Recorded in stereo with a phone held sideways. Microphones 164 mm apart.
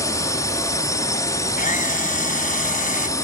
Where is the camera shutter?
55° left (ahead or behind).